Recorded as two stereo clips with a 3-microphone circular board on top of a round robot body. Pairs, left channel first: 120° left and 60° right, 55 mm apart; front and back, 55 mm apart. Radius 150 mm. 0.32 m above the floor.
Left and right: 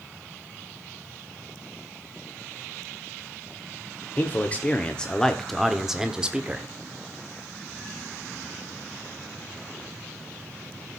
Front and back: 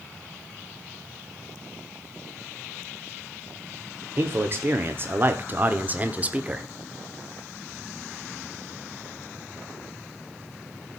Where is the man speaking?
165° left, 1.5 m; by 6.6 s 120° right, 1.5 m.